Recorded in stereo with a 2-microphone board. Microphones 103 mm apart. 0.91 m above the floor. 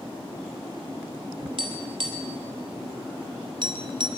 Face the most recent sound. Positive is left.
turn(degrees=-50)  # may be behind; listen again after turning